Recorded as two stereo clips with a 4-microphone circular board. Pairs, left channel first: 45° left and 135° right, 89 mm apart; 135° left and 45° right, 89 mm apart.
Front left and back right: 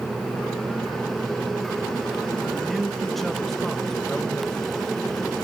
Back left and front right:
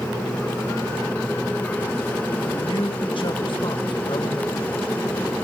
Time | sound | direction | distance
2.5 | a man speaking | 135° left | 2 m